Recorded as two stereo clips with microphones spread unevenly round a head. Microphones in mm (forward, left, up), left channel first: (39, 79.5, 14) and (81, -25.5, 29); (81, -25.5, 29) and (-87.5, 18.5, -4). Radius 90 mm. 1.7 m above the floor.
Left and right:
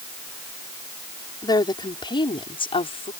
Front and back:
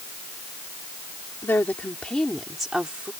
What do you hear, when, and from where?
1.4 s a woman speaking: 60° left; by 3.1 s 80° left